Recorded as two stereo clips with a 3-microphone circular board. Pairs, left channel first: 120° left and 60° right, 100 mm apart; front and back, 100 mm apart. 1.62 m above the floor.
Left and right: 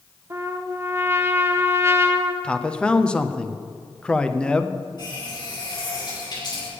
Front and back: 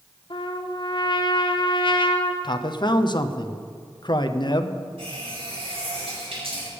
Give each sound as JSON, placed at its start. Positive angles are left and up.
{"t": 0.3, "sound": "a trumpet", "azimuth_deg": -5, "distance_m": 0.9}
{"t": 2.4, "sound": "a man speaking", "azimuth_deg": 40, "distance_m": 0.7}
{"t": 5.0, "sound": "a running tap", "azimuth_deg": 165, "distance_m": 5.5}